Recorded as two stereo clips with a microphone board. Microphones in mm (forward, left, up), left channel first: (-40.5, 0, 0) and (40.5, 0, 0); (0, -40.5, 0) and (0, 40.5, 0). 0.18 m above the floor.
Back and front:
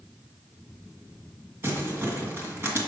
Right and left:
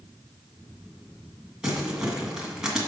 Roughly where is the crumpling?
Ahead.